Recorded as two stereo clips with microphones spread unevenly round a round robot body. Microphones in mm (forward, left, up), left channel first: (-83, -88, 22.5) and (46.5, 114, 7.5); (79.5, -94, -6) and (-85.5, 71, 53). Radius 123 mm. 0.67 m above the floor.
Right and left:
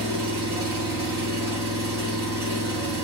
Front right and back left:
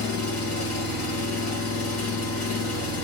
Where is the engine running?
20° right, 1.8 m.